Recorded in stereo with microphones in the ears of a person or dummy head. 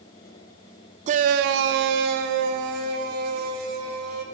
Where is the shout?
35° right (ahead or behind), 0.7 m; by 4.2 s 45° right (ahead or behind), 2.5 m.